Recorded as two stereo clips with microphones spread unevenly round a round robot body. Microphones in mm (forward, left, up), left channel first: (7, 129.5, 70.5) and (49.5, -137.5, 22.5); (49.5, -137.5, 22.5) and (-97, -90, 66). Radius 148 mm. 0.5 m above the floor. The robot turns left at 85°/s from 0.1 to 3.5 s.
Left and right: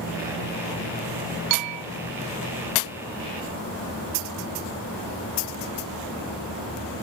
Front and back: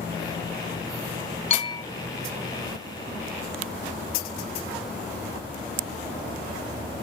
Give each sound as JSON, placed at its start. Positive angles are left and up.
{"t": 1.5, "sound": "a bell", "azimuth_deg": -60}